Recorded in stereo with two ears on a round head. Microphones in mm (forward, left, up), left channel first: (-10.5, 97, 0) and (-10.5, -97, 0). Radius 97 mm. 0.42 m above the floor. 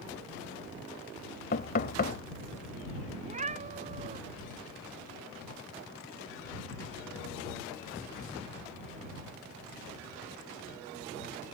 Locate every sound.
1.5 s knocking: 45° left (ahead or behind)
3.2 s a cat meowing: 35° right (ahead or behind)